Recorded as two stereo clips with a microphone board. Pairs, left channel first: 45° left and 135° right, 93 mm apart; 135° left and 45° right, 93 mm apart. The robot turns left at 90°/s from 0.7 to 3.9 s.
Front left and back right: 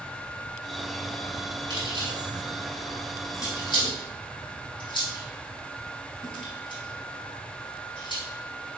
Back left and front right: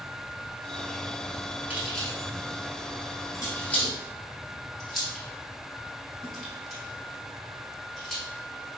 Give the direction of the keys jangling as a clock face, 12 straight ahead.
4 o'clock.